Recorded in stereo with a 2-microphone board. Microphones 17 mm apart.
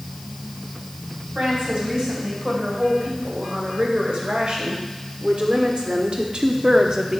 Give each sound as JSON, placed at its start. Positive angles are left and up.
{"t": 1.4, "sound": "a woman speaking", "side_deg": -70, "distance_m": 3.5}